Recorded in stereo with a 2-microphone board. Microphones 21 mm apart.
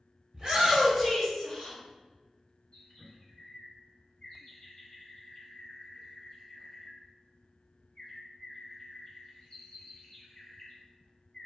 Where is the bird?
45° left (ahead or behind), 0.8 m.